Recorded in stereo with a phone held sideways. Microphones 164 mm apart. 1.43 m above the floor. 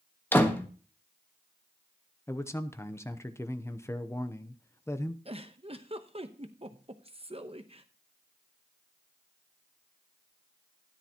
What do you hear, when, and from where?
0.3 s a door slam: 10° left (ahead or behind), 1.2 m
2.3 s a man speaking: 15° left (ahead or behind), 0.7 m
5.2 s a giggle: 35° right (ahead or behind), 0.9 m